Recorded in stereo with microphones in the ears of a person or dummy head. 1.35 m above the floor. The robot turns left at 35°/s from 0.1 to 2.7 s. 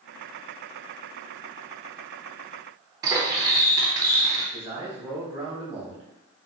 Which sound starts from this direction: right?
Cutlery clinking, at 3.0 s.